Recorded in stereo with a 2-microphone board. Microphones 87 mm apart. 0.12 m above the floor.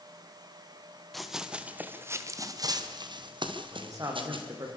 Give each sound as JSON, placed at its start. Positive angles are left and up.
{"t": 1.1, "sound": "running footsteps", "side_deg": 0, "distance_m": 2.5}
{"t": 3.7, "sound": "a man speaking", "side_deg": -40, "distance_m": 6.5}